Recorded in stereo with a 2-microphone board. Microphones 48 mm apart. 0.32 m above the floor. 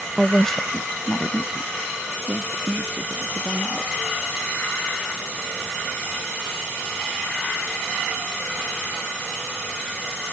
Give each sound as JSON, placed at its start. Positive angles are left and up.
{"t": 0.2, "sound": "a woman speaking", "side_deg": 0}